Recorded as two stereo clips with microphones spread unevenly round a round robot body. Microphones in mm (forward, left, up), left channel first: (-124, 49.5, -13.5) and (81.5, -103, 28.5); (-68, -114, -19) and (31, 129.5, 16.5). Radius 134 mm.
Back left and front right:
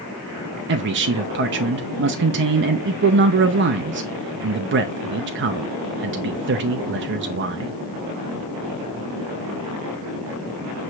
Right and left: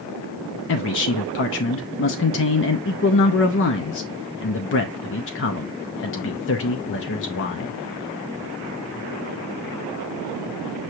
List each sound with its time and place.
0.7 s a man speaking: 85° right, 0.5 m